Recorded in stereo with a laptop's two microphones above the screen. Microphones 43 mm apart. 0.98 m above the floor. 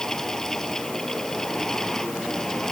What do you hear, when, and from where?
0.0 s a fan: 10° left (ahead or behind)